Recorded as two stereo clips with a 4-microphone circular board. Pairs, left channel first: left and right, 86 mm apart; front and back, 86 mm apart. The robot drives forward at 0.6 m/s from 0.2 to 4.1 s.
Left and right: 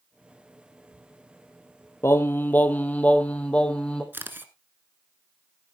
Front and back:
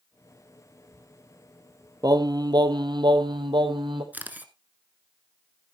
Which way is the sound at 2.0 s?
145° left.